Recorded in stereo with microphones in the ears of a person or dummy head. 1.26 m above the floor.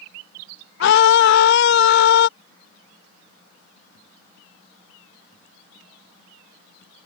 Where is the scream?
70° left (ahead or behind).